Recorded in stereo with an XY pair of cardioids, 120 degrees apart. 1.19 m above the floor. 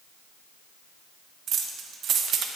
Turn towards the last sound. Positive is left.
turn(degrees=-55)